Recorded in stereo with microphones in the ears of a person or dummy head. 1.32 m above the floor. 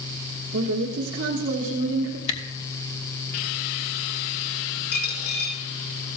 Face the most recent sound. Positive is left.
turn(degrees=50)  # may be behind; listen again after turning